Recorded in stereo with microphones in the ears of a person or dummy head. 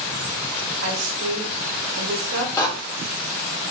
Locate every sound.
0.8 s a woman speaking: 70° right (ahead or behind), 1.1 m
2.6 s a door slam: 20° left (ahead or behind), 0.5 m